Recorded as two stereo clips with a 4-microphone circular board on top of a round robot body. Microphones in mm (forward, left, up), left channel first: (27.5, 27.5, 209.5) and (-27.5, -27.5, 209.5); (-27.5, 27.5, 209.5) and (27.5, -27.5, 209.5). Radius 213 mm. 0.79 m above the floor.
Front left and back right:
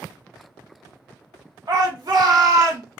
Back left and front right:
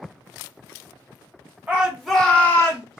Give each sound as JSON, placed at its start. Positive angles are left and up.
{"t": 1.7, "sound": "a shout", "azimuth_deg": -115, "distance_m": 1.3}